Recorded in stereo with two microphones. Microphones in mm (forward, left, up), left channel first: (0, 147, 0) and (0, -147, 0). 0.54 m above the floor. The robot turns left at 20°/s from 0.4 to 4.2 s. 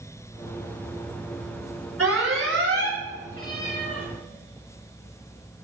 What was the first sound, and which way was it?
An alarm, 50° right (ahead or behind).